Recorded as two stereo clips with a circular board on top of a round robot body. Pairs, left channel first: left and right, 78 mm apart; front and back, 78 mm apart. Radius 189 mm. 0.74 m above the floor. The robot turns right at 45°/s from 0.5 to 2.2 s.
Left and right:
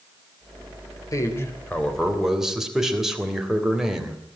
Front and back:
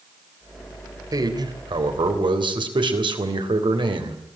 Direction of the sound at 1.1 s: 135° left.